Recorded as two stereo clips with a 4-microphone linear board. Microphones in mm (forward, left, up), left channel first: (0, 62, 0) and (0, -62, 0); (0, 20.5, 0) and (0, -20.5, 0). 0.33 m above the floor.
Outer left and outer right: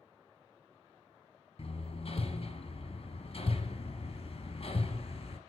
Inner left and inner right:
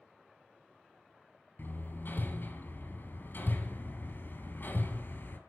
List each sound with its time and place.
1.6 s hammering: 55° left (ahead or behind), 2.5 m